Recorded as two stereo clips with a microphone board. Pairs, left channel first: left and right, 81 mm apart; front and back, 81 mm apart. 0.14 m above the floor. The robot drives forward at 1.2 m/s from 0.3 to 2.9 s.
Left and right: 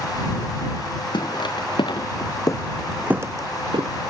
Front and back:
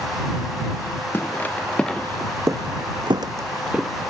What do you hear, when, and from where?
1.1 s footsteps: 65° left, 1.5 m; by 3.9 s 95° right, 0.8 m